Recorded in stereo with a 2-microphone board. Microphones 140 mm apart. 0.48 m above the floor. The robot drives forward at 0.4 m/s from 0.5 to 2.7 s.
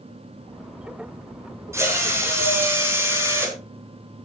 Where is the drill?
20° right (ahead or behind), 3.5 m.